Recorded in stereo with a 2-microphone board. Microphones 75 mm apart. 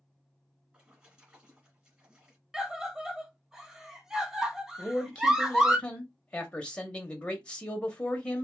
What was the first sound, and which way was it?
A splash, 20° right (ahead or behind).